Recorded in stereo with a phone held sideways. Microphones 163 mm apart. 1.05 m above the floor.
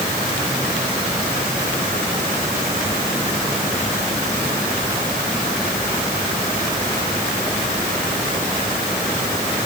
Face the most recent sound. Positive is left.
No sound to turn to.